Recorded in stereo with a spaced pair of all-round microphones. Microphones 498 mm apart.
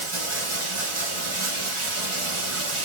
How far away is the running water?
About 1.8 m.